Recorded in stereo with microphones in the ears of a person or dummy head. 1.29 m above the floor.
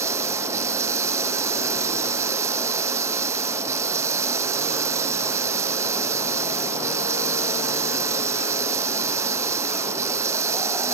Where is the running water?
20° right (ahead or behind).